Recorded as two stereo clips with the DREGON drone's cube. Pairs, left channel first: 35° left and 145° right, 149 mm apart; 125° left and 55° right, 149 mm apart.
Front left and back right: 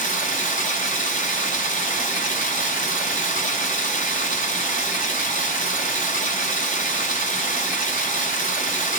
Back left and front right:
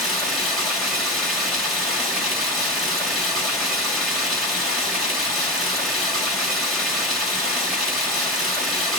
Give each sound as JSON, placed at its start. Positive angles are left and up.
{"t": 0.0, "sound": "running water", "azimuth_deg": 35, "distance_m": 1.9}